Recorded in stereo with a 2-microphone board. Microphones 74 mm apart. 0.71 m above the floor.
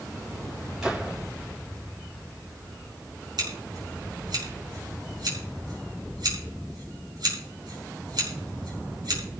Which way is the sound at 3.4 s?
70° right (ahead or behind).